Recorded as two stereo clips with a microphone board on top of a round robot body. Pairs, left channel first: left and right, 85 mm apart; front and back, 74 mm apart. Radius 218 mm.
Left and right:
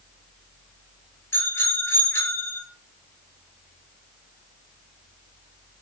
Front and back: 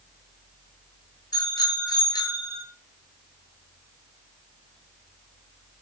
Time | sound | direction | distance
1.3 | a bicycle bell | 25° left | 9 m